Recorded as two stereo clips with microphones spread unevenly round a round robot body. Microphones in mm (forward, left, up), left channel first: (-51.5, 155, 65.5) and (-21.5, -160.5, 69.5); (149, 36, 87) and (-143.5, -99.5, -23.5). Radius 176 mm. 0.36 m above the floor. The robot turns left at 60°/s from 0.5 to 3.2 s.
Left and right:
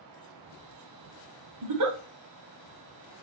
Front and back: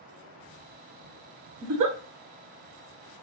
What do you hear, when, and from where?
1.6 s a giggle: 105° right, 1.0 m; by 2.0 s 125° right, 1.0 m